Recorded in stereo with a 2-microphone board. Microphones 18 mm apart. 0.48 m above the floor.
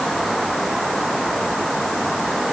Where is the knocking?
I don't hear knocking.